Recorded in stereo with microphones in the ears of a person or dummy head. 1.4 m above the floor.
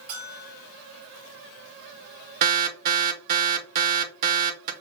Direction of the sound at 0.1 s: 25° right (ahead or behind).